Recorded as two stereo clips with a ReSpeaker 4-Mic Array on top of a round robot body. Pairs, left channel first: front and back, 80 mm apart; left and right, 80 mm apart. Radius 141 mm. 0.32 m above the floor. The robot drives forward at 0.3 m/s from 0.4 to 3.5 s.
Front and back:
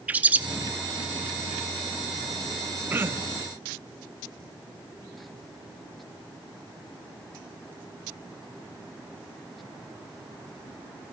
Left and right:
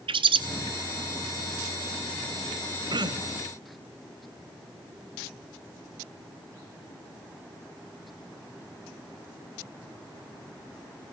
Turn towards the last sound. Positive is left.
turn(degrees=-125)